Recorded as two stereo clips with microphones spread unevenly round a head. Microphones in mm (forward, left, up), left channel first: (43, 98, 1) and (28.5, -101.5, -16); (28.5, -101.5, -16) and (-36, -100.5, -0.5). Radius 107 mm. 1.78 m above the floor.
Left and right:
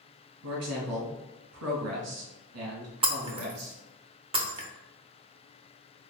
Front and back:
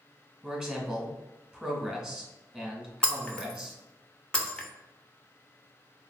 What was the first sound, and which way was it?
A man speaking, 105° right.